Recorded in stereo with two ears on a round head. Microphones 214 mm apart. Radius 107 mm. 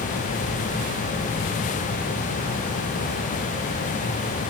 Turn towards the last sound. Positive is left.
No sound to turn to.